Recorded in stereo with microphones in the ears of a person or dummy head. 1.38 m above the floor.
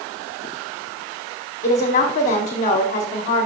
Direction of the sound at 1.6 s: 40° left (ahead or behind).